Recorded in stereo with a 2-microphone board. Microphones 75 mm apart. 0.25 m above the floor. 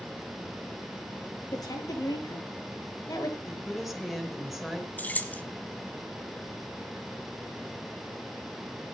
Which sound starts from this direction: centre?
A woman speaking, at 3.5 s.